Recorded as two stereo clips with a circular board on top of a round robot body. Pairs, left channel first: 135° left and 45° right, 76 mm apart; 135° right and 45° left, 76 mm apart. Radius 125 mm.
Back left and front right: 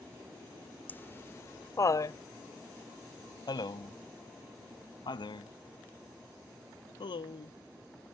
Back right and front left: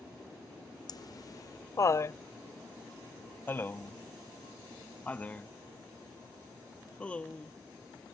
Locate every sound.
0.9 s laughter: 160° right; by 7.5 s 150° left